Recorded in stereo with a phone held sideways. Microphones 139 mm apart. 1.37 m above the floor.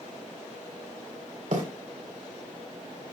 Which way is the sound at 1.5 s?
70° right (ahead or behind).